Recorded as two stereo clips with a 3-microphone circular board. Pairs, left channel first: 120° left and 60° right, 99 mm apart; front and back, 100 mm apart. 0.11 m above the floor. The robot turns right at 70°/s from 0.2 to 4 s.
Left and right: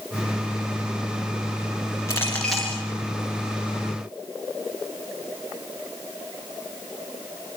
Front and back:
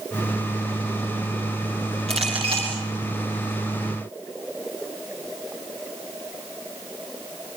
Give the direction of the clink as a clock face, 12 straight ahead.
6 o'clock.